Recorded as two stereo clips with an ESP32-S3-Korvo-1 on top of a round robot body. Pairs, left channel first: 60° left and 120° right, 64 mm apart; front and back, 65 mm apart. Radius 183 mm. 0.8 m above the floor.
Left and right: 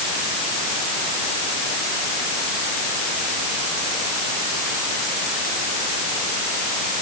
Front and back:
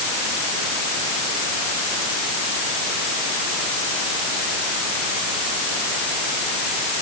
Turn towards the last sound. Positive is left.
No sound to turn to.